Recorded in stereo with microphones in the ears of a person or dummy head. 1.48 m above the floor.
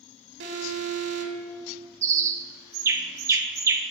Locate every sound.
0.4 s an alarm: 70° right (ahead or behind), 1.5 m
2.0 s a bird: 20° right (ahead or behind), 0.6 m